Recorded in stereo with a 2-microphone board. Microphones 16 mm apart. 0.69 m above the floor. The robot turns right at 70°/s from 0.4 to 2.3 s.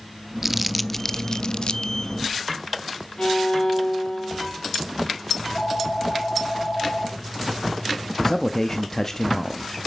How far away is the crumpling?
About 0.5 m.